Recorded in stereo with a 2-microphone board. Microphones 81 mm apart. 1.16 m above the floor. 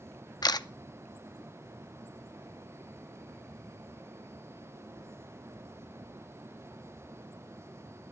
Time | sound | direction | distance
0.4 | a camera shutter | 55° left (ahead or behind) | 0.5 m